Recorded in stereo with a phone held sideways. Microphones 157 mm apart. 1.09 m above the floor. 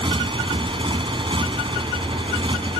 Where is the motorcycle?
30° right (ahead or behind).